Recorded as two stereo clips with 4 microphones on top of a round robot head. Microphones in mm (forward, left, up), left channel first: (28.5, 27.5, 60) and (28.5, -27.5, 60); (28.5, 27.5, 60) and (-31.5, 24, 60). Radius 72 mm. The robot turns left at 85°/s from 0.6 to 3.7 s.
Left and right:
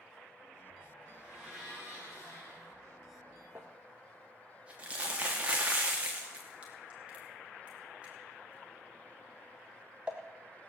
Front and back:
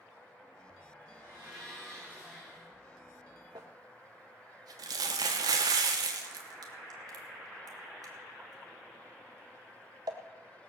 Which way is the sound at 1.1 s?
145° right.